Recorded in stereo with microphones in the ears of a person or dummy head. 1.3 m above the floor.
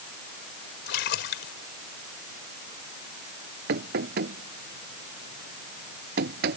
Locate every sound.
0.9 s a splash: 65° left (ahead or behind)
3.7 s knocking: 55° right (ahead or behind)